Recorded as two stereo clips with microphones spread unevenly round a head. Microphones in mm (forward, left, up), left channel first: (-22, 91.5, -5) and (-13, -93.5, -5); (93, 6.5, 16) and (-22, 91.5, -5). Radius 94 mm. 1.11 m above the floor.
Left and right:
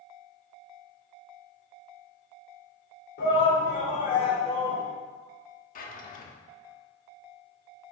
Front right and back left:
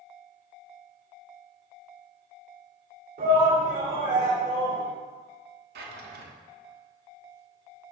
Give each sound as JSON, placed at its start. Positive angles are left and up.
{"t": 3.2, "sound": "a shout", "azimuth_deg": 130, "distance_m": 3.5}
{"t": 5.8, "sound": "a drawer", "azimuth_deg": 140, "distance_m": 1.2}